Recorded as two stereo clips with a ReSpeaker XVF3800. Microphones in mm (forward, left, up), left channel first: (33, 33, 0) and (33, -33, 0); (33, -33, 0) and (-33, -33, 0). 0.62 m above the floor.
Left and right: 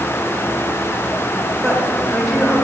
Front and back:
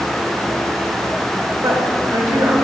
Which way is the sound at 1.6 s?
Straight behind.